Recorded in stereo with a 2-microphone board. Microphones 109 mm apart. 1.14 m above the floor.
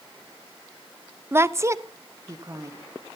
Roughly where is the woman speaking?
Right.